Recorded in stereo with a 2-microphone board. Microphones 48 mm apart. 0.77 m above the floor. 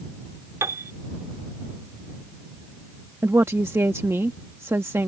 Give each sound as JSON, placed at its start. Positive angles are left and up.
{"t": 0.6, "sound": "a piano", "side_deg": -80}
{"t": 3.2, "sound": "a woman speaking", "side_deg": -55}